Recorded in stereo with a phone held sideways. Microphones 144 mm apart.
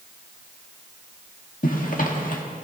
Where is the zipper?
65° left (ahead or behind), 1.7 m.